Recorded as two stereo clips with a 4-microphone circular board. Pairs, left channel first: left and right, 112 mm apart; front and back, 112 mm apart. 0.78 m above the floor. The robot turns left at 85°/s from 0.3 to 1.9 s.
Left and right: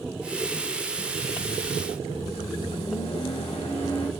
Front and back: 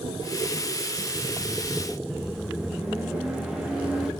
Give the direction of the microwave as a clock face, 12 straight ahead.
9 o'clock.